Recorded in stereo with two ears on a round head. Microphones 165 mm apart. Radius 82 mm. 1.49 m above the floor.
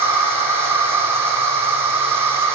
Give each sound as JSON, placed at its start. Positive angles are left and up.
{"t": 0.0, "sound": "an insect", "side_deg": -15, "distance_m": 6.5}